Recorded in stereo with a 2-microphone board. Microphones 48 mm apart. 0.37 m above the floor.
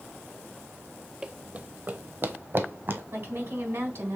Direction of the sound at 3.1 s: 65° right (ahead or behind).